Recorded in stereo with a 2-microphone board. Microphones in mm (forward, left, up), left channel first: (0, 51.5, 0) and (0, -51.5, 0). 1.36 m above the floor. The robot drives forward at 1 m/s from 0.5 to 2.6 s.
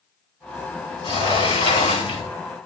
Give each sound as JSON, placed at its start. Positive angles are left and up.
{"t": 1.0, "sound": "a sliding door", "side_deg": 65, "distance_m": 4.0}